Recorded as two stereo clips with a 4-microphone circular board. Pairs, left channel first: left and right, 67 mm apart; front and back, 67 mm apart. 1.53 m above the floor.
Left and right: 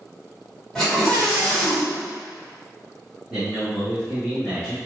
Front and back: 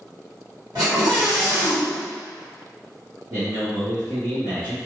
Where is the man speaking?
175° right, 1.3 m.